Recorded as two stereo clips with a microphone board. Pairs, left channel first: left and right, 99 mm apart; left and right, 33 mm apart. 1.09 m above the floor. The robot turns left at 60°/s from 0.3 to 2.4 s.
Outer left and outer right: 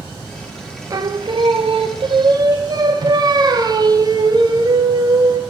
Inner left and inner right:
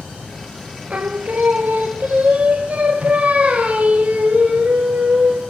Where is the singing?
40° right, 0.6 m; by 5.4 s 130° right, 0.6 m.